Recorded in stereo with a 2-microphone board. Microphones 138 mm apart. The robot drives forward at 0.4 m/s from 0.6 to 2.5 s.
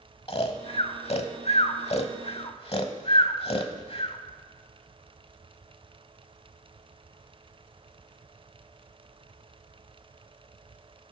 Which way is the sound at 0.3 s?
45° left (ahead or behind).